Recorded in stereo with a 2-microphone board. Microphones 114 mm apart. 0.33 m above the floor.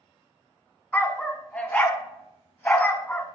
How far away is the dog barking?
About 0.7 m.